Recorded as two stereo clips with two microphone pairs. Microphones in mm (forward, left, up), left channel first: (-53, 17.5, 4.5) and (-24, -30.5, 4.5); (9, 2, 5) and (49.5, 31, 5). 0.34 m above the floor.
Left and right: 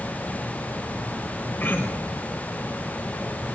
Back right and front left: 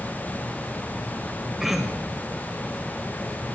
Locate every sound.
1.6 s throat clearing: 110° left, 1.5 m